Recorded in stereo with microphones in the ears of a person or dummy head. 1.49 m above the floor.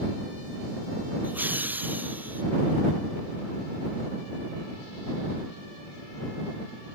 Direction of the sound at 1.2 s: 10° right (ahead or behind).